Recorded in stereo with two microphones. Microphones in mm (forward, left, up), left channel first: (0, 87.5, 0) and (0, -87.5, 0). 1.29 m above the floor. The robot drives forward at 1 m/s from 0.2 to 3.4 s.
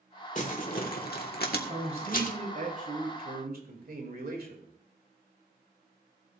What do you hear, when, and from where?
0.3 s crumpling: 50° left (ahead or behind), 1.8 m; by 2.4 s 55° left (ahead or behind), 1.7 m
1.7 s a man speaking: 40° right (ahead or behind), 3.5 m; by 4.7 s 65° right (ahead or behind), 2.5 m